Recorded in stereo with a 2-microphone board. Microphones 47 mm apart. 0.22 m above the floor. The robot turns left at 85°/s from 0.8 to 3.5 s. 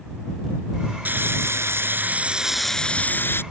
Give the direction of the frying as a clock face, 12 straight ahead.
2 o'clock.